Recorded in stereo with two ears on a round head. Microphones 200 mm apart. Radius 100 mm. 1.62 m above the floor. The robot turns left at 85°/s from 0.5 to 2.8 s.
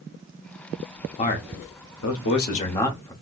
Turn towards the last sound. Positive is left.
turn(degrees=15)